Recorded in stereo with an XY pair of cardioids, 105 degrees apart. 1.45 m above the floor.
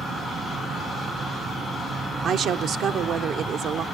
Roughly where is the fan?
Ahead right.